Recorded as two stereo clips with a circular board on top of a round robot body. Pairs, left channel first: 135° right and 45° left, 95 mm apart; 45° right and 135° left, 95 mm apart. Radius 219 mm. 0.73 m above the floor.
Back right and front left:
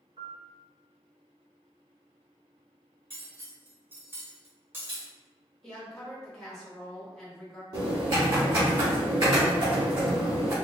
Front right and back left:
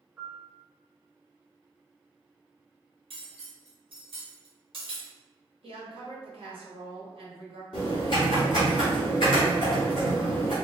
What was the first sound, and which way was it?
A piano, 75° left.